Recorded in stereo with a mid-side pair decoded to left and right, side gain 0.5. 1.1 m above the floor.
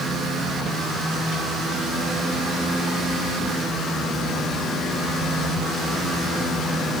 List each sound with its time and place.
Only background noise.